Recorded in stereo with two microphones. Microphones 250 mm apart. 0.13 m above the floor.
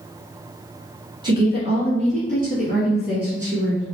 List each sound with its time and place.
1.2 s a woman speaking: 20° right (ahead or behind), 1.8 m; by 3.8 s 45° right (ahead or behind), 2.5 m